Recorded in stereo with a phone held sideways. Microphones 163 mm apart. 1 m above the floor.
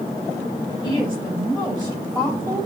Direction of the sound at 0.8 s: 35° right (ahead or behind).